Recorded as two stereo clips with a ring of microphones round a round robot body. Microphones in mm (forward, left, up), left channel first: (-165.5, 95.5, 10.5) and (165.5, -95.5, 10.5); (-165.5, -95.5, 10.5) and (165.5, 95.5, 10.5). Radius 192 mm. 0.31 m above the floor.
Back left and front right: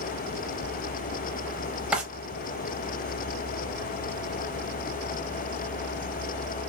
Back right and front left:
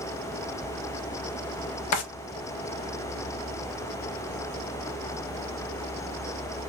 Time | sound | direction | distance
1.9 | a drawer | 115° right | 0.6 m